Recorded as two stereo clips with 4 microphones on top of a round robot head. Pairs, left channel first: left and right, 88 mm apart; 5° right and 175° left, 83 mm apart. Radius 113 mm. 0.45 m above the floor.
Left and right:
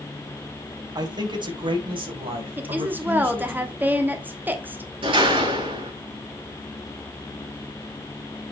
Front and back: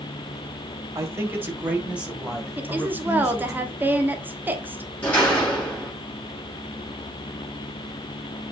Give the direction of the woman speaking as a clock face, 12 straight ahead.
5 o'clock.